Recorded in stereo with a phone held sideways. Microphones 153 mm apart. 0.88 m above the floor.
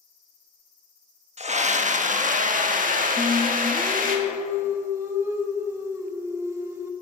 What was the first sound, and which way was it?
A scream, 50° right (ahead or behind).